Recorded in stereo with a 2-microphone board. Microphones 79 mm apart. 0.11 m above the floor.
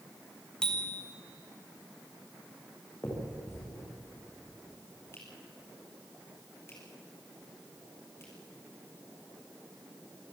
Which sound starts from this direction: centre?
A bicycle bell, at 0.6 s.